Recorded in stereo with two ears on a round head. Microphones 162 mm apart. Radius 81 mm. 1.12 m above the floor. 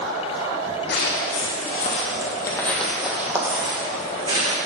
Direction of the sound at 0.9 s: 65° left (ahead or behind).